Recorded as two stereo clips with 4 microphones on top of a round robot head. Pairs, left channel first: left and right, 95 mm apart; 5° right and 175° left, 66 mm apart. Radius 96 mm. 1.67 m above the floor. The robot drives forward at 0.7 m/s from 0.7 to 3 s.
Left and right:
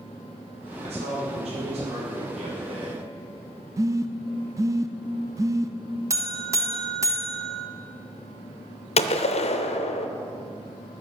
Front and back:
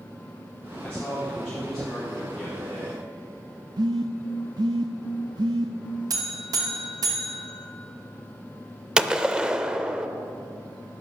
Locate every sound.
0.8 s a man speaking: 80° right, 4 m; by 3.0 s 105° right, 4 m
3.8 s a phone buzzing: 145° right, 0.6 m
6.1 s a buzzer: 150° right, 1.2 m
9.0 s a gunshot: 100° left, 0.6 m